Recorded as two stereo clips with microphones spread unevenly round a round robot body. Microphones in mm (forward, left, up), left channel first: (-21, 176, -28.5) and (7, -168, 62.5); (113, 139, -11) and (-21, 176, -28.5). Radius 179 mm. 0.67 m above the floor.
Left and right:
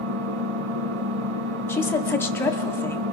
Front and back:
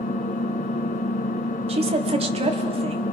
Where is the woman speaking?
165° left, 1.5 m.